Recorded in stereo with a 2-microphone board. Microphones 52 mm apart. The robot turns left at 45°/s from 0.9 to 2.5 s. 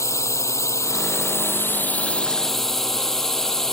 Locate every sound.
0.0 s a drone: 70° left (ahead or behind); by 3.7 s 10° left (ahead or behind)